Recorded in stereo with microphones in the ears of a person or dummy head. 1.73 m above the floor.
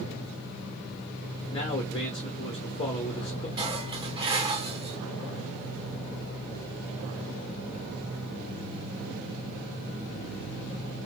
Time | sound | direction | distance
1.5 | a man speaking | 30° left (ahead or behind) | 1.0 m
3.6 | dishes clattering | 25° right (ahead or behind) | 1.8 m